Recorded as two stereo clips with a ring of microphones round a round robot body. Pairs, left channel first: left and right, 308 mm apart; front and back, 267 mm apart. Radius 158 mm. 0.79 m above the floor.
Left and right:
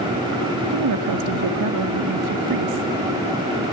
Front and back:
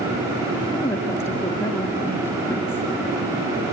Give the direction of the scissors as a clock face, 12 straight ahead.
I don't hear scissors.